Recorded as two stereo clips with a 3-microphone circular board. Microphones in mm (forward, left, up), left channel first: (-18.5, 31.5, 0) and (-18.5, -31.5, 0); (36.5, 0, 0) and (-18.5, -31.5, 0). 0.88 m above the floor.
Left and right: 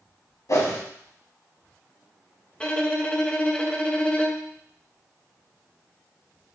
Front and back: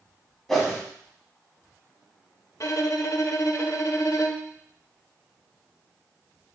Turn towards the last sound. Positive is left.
turn(degrees=20)